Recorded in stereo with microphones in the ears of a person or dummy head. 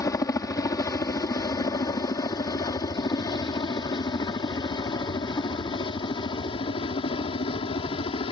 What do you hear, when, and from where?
0.0 s a helicopter: 25° left (ahead or behind); by 8.3 s 35° left (ahead or behind)